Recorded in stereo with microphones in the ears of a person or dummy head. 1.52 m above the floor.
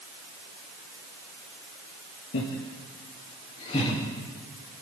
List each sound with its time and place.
2.3 s laughter: 70° left (ahead or behind), 2 m; by 4.0 s 30° left (ahead or behind), 3 m